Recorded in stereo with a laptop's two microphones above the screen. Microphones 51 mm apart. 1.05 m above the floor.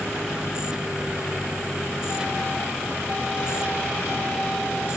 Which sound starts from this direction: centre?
A machine running, at 0.0 s.